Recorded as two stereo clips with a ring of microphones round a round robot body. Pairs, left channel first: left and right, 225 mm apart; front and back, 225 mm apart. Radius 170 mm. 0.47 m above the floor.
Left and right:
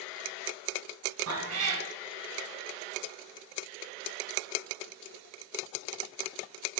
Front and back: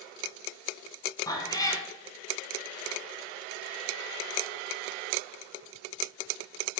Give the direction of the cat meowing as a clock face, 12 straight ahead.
2 o'clock.